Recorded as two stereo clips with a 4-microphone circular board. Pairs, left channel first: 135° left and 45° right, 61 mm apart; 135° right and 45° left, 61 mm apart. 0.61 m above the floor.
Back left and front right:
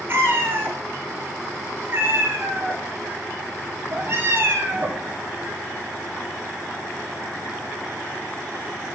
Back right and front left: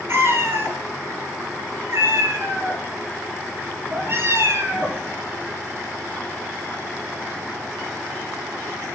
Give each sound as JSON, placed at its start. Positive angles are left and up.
{"t": 0.1, "sound": "a cat meowing", "azimuth_deg": 5, "distance_m": 1.4}